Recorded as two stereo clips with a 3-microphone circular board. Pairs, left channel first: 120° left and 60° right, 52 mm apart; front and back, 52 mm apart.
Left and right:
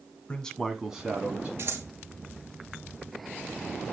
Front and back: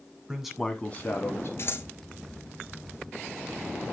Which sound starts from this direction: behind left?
A man speaking, at 0.3 s.